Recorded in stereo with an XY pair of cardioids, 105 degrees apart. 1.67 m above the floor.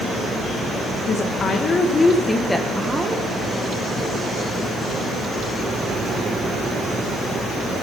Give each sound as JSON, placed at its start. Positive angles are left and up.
{"t": 1.1, "sound": "a woman speaking", "azimuth_deg": 60, "distance_m": 1.5}